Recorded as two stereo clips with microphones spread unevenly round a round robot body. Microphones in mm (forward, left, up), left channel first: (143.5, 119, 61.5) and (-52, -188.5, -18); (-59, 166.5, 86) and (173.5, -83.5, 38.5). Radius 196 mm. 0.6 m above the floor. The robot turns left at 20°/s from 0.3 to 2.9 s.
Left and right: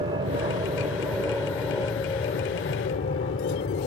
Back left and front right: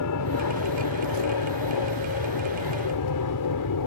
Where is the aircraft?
170° left; by 3.9 s 120° left.